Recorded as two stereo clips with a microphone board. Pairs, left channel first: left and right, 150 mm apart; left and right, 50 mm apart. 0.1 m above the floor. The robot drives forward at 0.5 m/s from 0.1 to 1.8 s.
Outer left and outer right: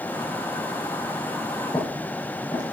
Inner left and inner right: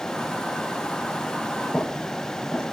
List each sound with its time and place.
1.7 s footsteps: 25° left (ahead or behind), 5.5 m